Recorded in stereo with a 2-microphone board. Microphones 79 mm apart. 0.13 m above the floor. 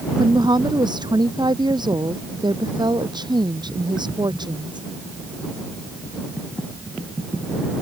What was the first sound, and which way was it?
A woman speaking, 65° right (ahead or behind).